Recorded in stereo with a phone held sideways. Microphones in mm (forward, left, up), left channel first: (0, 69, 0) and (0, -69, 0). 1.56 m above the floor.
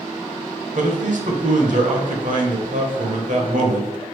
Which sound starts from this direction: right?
A man speaking, at 0.8 s.